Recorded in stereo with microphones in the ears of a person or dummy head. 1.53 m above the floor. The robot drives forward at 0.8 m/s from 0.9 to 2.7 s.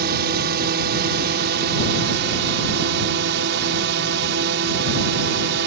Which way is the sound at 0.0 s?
60° right (ahead or behind).